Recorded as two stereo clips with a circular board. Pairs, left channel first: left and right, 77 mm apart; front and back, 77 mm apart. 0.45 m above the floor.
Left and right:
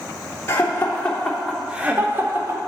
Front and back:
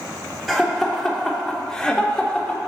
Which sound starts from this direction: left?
Laughter, at 0.5 s.